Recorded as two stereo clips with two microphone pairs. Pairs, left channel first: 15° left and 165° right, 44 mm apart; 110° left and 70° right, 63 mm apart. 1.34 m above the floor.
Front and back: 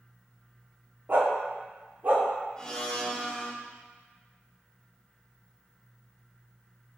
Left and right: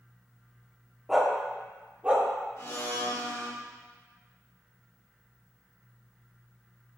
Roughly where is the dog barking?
Behind right.